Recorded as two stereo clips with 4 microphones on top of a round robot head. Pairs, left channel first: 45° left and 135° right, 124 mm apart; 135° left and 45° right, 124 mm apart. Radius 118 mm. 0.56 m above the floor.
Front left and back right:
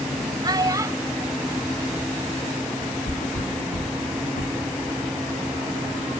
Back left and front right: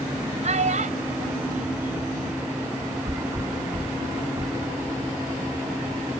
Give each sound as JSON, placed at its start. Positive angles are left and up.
{"t": 0.4, "sound": "a child speaking", "azimuth_deg": -80}
{"t": 3.0, "sound": "a thud", "azimuth_deg": 25}